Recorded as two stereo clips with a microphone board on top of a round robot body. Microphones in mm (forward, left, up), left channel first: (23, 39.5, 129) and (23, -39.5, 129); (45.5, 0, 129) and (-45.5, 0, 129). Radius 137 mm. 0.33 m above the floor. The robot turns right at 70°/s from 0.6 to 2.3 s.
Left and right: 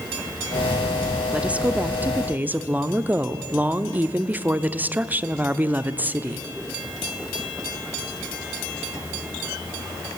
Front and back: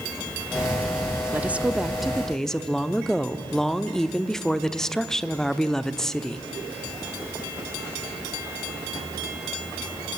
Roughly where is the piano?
No piano in this recording.